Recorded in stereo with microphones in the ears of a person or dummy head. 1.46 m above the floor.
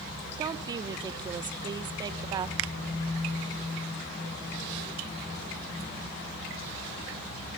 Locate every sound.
0.4 s a woman speaking: 20° right (ahead or behind), 1.5 m
2.6 s a finger snap: 70° right (ahead or behind), 0.8 m